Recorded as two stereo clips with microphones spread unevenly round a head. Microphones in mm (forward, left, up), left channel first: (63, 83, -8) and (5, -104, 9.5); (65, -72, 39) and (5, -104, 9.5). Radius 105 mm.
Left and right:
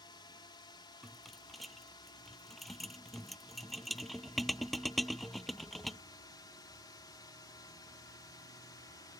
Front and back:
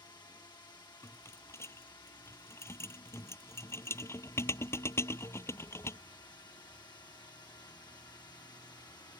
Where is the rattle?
20° right.